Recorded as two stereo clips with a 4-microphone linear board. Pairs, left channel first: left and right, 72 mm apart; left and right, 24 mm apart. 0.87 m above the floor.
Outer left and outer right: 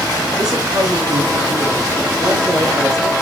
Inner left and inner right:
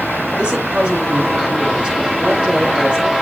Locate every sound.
0.4 s a woman speaking: 55° right (ahead or behind), 8 m